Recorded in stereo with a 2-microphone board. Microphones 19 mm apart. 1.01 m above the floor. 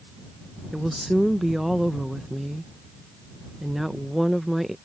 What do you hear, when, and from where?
0.7 s a woman speaking: 10° right (ahead or behind)